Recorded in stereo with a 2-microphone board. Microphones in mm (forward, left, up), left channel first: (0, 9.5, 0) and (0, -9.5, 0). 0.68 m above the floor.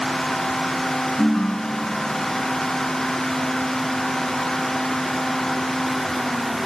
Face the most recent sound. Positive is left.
turn(degrees=85)